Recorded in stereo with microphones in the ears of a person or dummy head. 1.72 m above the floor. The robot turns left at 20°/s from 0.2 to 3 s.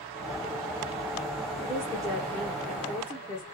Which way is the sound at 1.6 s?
10° right (ahead or behind).